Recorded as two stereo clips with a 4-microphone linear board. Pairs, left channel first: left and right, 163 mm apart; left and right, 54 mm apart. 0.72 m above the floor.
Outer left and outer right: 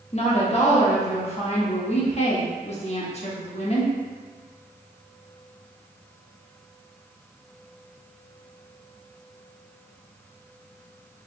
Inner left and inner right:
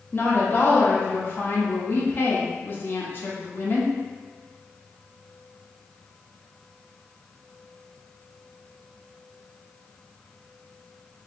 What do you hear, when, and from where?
0.1 s a woman speaking: 40° left (ahead or behind), 0.9 m